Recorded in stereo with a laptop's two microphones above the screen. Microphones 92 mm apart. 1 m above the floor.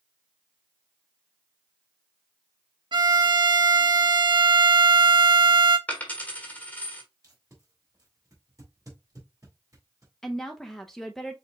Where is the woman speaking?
5° left (ahead or behind), 0.6 m.